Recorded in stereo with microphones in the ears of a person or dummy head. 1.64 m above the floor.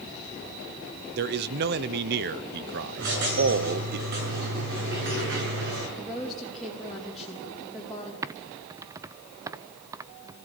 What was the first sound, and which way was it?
A man speaking, 55° right (ahead or behind).